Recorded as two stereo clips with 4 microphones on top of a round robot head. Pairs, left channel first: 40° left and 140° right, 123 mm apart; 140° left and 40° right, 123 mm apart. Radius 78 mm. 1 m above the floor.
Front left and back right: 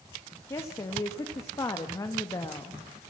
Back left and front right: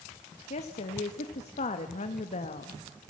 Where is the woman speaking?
105° left, 1.3 m.